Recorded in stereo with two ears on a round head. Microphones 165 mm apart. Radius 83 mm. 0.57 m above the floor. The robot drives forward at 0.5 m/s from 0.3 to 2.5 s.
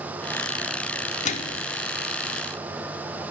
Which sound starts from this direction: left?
A microwave, at 1.2 s.